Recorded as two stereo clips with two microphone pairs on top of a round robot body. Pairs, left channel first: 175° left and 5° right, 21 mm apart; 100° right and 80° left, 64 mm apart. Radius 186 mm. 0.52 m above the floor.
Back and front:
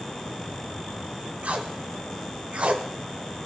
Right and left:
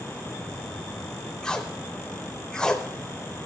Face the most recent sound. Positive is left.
turn(degrees=-20)